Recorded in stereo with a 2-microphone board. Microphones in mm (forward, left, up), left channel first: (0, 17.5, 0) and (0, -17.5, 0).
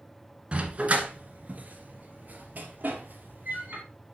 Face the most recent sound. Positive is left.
turn(degrees=-65)  # may be behind; listen again after turning